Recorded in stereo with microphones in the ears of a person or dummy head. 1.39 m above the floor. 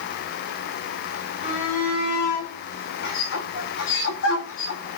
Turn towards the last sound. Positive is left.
turn(degrees=70)  # may be behind; listen again after turning